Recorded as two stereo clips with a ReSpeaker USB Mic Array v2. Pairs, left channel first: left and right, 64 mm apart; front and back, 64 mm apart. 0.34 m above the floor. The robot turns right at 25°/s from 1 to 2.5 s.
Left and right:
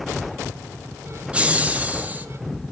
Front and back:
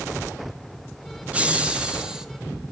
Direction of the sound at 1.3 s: 135° right.